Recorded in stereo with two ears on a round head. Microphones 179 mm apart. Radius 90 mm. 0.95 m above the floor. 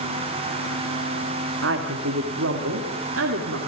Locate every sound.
1.6 s a woman speaking: 70° right (ahead or behind), 2 m; by 3.6 s 75° right (ahead or behind), 3 m